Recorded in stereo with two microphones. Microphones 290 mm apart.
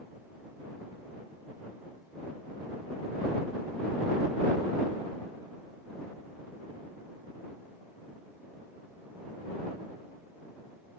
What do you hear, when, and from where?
Only background noise.